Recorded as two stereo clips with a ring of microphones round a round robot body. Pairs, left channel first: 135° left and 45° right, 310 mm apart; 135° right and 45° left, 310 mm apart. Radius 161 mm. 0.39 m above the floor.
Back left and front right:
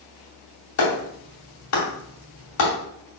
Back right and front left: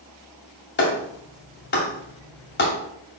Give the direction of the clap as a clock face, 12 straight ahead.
6 o'clock.